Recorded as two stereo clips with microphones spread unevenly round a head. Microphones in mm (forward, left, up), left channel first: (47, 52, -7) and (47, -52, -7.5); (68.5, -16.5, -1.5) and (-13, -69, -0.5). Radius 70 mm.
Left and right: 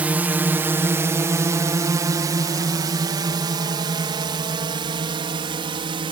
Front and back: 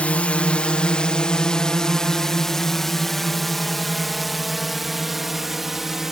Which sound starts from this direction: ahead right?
A drone, at 0.0 s.